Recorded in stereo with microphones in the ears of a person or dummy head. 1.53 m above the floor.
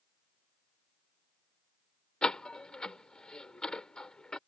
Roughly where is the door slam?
Centre.